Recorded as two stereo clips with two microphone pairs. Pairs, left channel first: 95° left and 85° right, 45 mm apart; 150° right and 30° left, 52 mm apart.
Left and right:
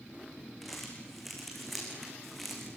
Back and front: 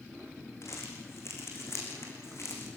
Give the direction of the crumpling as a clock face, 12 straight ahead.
6 o'clock.